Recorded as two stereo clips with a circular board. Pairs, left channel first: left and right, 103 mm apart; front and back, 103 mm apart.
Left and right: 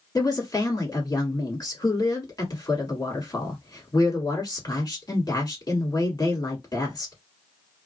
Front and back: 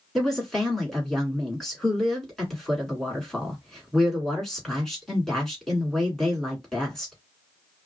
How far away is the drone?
I don't hear a drone.